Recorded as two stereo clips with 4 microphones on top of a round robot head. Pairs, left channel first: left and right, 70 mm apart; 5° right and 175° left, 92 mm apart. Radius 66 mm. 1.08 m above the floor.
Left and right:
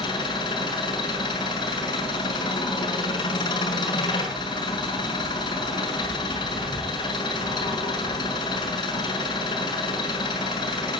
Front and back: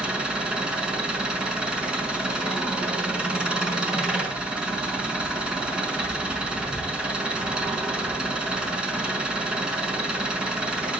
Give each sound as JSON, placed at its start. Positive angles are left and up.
{"t": 0.0, "sound": "an engine running", "azimuth_deg": 100, "distance_m": 6.0}